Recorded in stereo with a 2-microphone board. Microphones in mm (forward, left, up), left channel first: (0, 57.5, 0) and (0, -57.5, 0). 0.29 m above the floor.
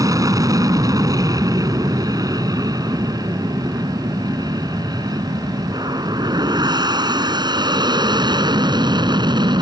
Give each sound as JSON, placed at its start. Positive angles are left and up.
{"t": 0.0, "sound": "an aircraft", "side_deg": -30}